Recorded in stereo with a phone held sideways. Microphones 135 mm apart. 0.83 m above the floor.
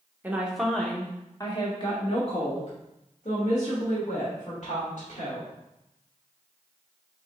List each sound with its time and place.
0.2 s a woman speaking: 15° right (ahead or behind), 0.8 m; by 5.5 s 70° left (ahead or behind), 2.5 m